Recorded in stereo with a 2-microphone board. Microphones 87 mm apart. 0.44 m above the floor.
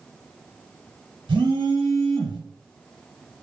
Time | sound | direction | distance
1.3 | a phone buzzing | 75° right (ahead or behind) | 0.8 m